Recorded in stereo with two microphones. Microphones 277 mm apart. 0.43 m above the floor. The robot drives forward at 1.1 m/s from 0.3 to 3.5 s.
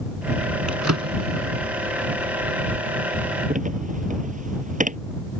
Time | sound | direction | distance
0.7 | a drawer | 85° right | ?